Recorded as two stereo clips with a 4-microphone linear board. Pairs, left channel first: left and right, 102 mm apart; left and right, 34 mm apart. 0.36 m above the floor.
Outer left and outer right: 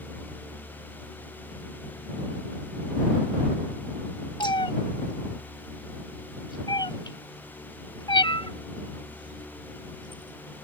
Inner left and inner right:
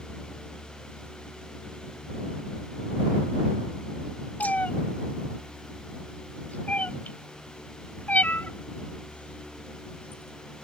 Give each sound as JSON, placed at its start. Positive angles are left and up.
{"t": 4.4, "sound": "a cat meowing", "side_deg": 50}